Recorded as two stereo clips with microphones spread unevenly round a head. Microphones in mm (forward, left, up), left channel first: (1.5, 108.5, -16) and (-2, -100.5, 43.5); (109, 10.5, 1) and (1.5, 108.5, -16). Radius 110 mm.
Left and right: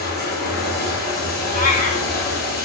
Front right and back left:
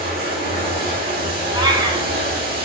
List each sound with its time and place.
0.0 s running water: 125° left, 1.8 m
1.5 s a cat meowing: 130° left, 1.0 m